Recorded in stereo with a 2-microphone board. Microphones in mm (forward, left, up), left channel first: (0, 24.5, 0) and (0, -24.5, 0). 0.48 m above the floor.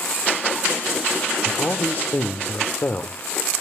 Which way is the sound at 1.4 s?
45° left (ahead or behind).